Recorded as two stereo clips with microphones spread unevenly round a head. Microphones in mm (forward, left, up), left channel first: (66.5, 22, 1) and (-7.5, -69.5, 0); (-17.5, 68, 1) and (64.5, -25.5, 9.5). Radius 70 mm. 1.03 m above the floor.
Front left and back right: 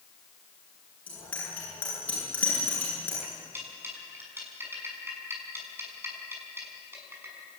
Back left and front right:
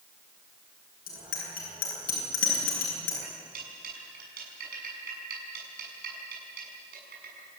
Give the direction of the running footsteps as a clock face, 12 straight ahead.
No running footsteps in this recording.